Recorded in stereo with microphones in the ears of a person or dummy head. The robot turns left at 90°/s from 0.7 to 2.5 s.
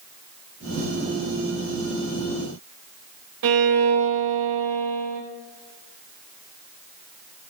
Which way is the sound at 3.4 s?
60° right (ahead or behind).